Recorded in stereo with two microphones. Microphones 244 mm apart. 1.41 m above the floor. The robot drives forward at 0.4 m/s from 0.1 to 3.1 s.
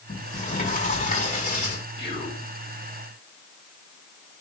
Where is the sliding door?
30° left (ahead or behind), 6 m; by 1.8 s 35° left (ahead or behind), 5.5 m.